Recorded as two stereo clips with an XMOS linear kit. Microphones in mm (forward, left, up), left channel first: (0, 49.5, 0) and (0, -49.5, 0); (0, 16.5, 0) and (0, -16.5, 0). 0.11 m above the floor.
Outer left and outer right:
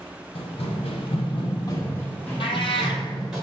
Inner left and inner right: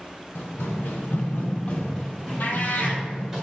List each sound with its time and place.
0.3 s running footsteps: 70° left (ahead or behind), 0.8 m; by 3.4 s 5° right (ahead or behind), 1.6 m
2.4 s a cat meowing: 65° left (ahead or behind), 0.5 m